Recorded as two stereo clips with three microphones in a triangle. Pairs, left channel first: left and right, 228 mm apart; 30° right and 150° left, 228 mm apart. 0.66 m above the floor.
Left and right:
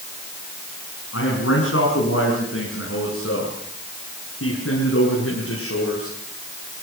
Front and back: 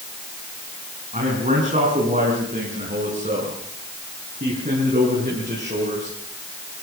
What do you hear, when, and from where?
1.1 s a man speaking: 95° left, 7 m